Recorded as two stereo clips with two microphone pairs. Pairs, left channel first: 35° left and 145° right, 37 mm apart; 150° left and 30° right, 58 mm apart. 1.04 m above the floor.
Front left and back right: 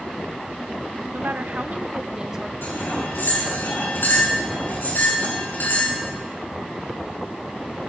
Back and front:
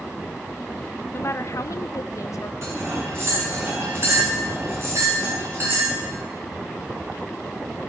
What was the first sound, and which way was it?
A woman speaking, 160° right.